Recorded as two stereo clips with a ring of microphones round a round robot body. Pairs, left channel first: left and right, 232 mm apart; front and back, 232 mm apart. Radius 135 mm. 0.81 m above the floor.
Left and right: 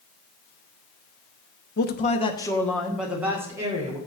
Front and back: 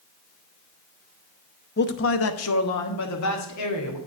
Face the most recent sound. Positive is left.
turn(degrees=-15)